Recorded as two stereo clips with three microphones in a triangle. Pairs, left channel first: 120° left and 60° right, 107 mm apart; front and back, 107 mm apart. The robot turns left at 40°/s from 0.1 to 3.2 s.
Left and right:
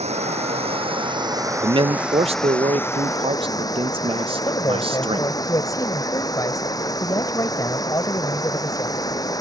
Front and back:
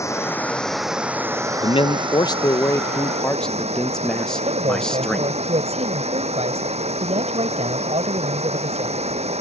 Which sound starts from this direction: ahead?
A man speaking, at 1.6 s.